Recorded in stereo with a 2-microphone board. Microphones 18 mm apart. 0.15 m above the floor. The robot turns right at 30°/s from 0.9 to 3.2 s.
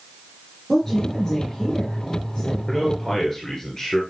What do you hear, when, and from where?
0.7 s a woman speaking: 15° left, 3 m; by 2.6 s 65° left, 3 m
2.7 s a man speaking: 15° left (ahead or behind), 2 m; by 4.0 s 30° left (ahead or behind), 2 m